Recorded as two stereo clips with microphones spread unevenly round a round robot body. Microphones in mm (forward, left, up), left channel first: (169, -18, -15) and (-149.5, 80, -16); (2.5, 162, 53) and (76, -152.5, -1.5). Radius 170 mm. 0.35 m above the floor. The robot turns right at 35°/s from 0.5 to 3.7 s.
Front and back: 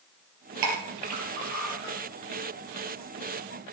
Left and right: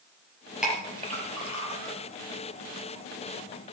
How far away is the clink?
About 4.5 m.